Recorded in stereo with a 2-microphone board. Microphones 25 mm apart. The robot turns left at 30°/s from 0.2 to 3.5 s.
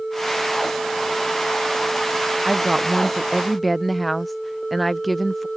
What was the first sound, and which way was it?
A woman speaking, 150° right.